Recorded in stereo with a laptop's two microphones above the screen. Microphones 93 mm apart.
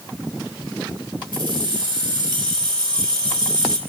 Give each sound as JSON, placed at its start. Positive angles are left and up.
{"t": 1.3, "sound": "keys jangling", "side_deg": -70, "distance_m": 3.0}